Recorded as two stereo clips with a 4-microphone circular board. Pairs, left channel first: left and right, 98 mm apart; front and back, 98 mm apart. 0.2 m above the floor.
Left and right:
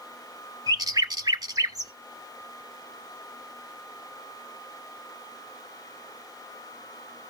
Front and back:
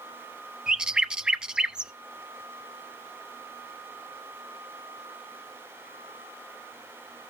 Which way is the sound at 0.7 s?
105° right.